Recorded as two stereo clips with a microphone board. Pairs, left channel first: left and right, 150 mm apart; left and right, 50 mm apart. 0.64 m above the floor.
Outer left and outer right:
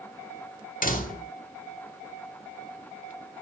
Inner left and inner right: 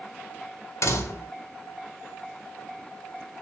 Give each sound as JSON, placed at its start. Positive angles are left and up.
{"t": 0.8, "sound": "a door slam", "side_deg": 70, "distance_m": 1.8}